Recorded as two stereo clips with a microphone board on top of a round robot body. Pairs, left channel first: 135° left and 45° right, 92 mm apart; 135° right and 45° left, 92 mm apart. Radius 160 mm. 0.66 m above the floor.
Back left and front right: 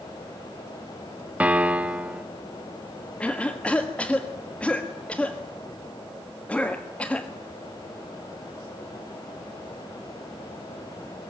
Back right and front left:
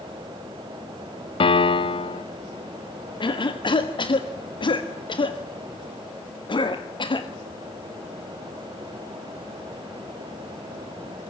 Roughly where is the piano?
Behind right.